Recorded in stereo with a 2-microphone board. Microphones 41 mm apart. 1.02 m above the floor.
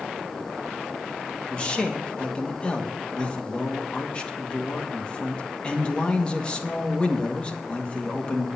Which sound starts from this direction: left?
A man speaking, at 1.5 s.